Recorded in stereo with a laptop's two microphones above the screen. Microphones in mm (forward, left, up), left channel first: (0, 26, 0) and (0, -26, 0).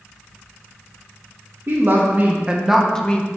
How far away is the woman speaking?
About 1.0 m.